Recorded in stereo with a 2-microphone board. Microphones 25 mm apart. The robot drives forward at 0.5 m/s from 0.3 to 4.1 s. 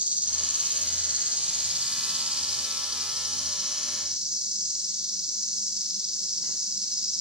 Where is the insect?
70° right (ahead or behind), 1.6 m; by 7.2 s 35° right (ahead or behind), 2.5 m.